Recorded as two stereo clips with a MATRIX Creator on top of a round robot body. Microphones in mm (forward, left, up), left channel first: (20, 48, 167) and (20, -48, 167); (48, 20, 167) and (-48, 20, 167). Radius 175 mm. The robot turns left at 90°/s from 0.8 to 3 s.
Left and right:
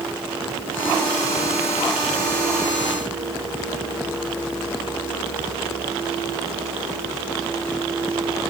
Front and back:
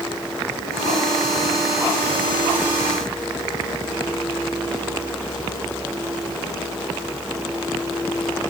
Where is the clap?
No clap in this recording.